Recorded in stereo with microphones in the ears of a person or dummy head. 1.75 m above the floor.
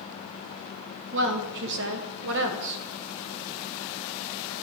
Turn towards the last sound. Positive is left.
turn(degrees=-65)  # may be behind; listen again after turning